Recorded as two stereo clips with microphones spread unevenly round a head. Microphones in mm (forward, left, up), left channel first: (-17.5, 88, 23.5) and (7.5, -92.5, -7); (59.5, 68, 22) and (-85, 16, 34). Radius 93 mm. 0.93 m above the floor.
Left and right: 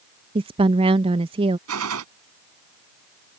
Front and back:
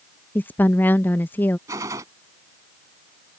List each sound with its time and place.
0.3 s a woman speaking: 50° right
1.7 s a gunshot: 85° right